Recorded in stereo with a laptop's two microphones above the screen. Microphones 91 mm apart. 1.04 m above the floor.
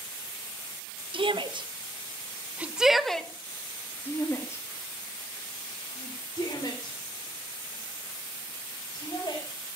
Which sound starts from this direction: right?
A shout, at 1.1 s.